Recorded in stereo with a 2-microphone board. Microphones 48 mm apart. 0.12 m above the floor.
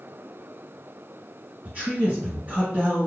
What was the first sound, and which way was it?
A man speaking, 30° right (ahead or behind).